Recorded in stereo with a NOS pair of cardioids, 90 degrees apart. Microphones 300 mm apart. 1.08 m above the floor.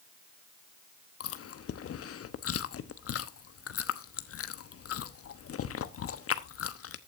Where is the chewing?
50° left, 1.1 m.